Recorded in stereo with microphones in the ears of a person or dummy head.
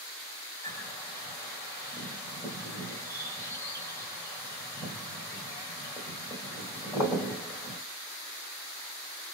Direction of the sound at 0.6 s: 10° left (ahead or behind).